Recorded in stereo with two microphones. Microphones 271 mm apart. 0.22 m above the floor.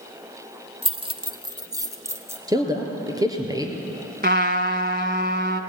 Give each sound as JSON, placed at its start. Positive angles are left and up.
{"t": 0.8, "sound": "keys jangling", "side_deg": -20, "distance_m": 0.8}
{"t": 2.5, "sound": "a man speaking", "side_deg": -15, "distance_m": 3.5}
{"t": 4.2, "sound": "a trumpet", "side_deg": -40, "distance_m": 1.0}